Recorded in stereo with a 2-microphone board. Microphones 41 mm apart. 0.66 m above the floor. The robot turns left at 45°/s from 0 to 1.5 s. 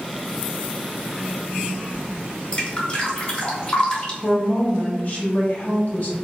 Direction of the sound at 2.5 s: 30° left (ahead or behind).